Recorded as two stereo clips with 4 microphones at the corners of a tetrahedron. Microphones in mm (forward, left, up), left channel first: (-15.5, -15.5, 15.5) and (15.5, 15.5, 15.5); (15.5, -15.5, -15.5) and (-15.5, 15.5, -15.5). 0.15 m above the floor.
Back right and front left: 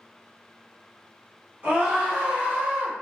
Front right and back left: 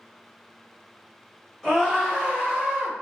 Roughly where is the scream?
Ahead left.